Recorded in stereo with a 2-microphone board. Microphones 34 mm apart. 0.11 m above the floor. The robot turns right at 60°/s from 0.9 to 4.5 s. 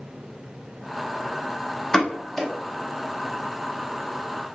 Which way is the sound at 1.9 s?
20° left (ahead or behind).